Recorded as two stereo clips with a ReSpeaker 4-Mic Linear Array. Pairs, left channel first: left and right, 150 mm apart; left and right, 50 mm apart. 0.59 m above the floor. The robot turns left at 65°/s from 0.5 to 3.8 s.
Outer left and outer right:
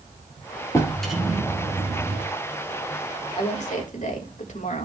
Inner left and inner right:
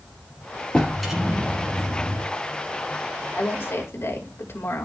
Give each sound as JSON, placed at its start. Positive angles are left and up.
{"t": 0.7, "sound": "a drawer", "azimuth_deg": 20, "distance_m": 2.5}
{"t": 3.4, "sound": "a woman speaking", "side_deg": 35, "distance_m": 2.5}